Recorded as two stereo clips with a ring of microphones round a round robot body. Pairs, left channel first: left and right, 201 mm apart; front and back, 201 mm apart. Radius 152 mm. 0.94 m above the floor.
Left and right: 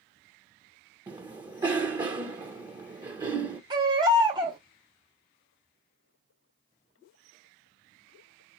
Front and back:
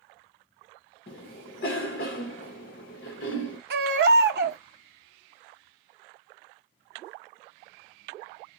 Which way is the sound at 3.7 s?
160° right.